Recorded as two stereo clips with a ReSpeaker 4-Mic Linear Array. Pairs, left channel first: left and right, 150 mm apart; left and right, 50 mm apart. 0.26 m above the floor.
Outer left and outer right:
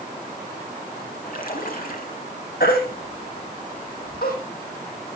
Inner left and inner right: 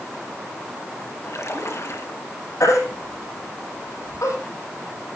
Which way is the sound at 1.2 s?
65° left (ahead or behind).